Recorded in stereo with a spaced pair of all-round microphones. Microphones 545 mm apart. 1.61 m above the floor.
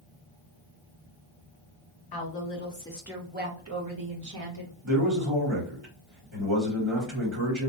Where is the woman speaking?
45° left (ahead or behind), 0.7 m; by 4.7 s 50° right (ahead or behind), 1.2 m.